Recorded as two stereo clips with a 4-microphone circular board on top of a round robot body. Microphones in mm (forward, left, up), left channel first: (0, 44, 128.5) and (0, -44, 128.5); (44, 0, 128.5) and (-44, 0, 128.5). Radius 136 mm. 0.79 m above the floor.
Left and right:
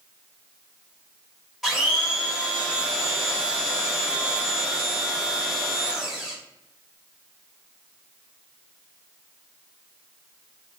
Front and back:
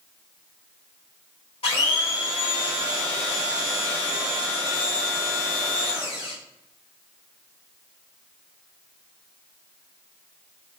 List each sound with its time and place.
1.6 s a blender: straight ahead, 1.5 m